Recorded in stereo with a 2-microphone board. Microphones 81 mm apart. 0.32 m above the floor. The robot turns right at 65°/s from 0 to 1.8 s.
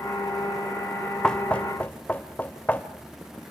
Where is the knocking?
10° left (ahead or behind), 0.9 m; by 2.9 s 20° left (ahead or behind), 0.9 m.